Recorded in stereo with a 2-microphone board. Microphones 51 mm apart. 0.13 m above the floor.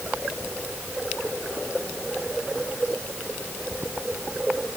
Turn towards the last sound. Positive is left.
No sound to turn to.